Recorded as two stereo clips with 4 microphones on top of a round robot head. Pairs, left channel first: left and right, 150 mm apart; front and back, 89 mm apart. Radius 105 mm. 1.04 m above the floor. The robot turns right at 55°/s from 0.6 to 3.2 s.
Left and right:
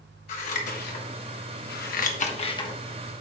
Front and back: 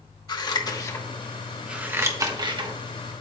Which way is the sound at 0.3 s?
40° left.